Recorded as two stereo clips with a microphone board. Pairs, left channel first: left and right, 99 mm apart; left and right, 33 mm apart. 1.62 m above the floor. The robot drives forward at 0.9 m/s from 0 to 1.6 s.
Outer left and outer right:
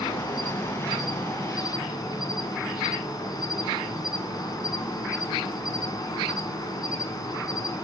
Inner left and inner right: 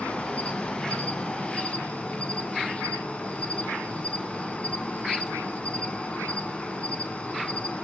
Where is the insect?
40° left (ahead or behind), 2 m.